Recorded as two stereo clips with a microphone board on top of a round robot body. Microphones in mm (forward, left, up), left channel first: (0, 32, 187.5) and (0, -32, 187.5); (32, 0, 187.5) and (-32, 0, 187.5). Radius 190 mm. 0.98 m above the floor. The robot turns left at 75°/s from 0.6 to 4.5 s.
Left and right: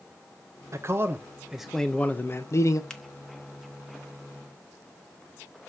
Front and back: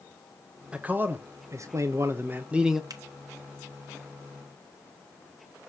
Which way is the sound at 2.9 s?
165° left.